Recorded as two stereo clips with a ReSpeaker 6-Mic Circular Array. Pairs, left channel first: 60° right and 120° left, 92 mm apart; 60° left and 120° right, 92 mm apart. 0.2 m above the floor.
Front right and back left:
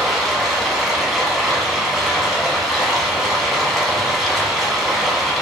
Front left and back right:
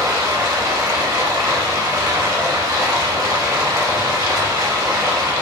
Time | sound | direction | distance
0.0 | running water | 155° right | 0.8 m